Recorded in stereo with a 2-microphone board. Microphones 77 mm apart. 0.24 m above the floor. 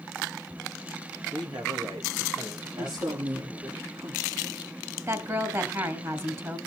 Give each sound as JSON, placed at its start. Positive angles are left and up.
{"t": 1.3, "sound": "a man speaking", "side_deg": -70, "distance_m": 3.5}
{"t": 2.8, "sound": "a woman speaking", "side_deg": -70, "distance_m": 3.5}
{"t": 5.1, "sound": "a woman speaking", "side_deg": -40, "distance_m": 2.5}